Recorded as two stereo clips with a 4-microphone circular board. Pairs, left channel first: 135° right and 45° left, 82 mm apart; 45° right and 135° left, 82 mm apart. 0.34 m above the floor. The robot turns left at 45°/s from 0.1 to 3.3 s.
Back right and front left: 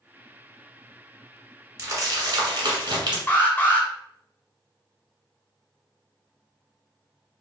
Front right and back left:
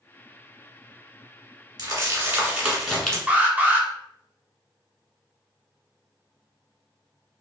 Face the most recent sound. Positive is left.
turn(degrees=-175)